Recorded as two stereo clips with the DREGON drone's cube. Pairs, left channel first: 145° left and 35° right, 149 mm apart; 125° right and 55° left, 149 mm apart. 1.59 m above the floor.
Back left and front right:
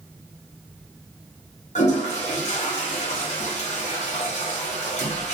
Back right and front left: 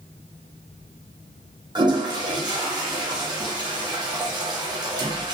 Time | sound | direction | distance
1.8 | a toilet flushing | 115° left | 0.6 m